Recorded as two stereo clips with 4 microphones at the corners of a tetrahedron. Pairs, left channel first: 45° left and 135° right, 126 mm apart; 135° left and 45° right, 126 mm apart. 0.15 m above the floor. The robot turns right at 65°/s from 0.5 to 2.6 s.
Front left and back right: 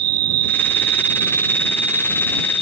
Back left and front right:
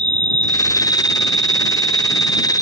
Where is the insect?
55° left; by 2.6 s 165° right.